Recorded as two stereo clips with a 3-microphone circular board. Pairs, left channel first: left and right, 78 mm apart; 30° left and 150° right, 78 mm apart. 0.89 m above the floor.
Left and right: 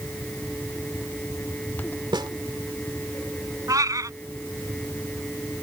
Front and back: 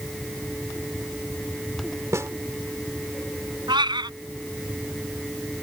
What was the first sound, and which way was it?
A snare drum, 100° right.